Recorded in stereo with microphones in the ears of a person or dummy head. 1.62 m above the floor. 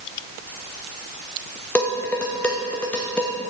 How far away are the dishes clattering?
About 0.9 m.